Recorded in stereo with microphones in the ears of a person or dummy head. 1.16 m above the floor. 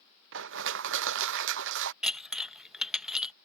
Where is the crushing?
70° right (ahead or behind).